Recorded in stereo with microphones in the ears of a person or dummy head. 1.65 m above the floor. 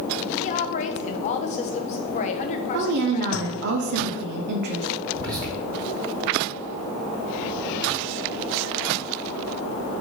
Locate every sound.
0.4 s a woman speaking: 40° left (ahead or behind), 0.8 m
2.7 s a woman speaking: 55° right (ahead or behind), 0.9 m
5.1 s whispering: 20° right (ahead or behind), 3 m